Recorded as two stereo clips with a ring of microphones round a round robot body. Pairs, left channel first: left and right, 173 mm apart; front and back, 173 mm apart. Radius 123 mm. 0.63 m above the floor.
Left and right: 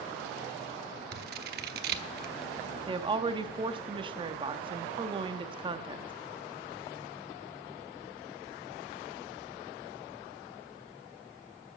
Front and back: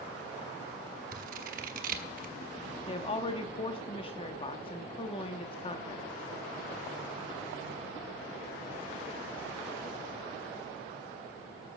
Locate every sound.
1.1 s scissors: 130° right, 0.8 m
2.9 s a woman speaking: 45° right, 1.0 m